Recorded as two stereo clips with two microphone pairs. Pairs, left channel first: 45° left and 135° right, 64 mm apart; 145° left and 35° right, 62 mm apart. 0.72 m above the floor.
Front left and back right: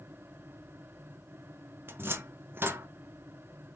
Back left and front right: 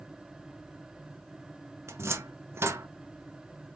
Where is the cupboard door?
80° right, 0.6 m.